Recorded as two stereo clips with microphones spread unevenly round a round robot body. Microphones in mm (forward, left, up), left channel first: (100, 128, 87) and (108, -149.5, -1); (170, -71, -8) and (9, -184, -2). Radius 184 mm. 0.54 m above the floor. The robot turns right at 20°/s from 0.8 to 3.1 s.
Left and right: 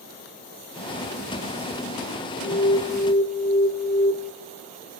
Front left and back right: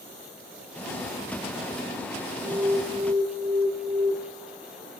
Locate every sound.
2.4 s an alarm: 160° left, 1.9 m; by 4.1 s 175° left, 1.9 m